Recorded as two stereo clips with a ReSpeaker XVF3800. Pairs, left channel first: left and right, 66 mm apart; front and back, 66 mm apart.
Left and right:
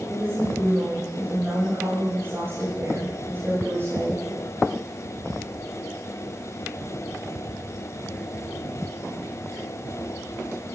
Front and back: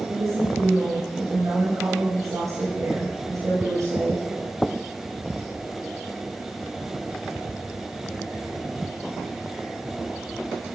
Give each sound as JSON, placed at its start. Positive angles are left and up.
{"t": 0.1, "sound": "a woman speaking", "azimuth_deg": -145, "distance_m": 9.5}